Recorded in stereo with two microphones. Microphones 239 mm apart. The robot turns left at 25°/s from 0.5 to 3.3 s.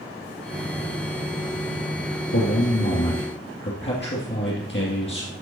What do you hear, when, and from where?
2.3 s a man speaking: 65° left (ahead or behind), 2.5 m; by 5.3 s 50° left (ahead or behind), 2.5 m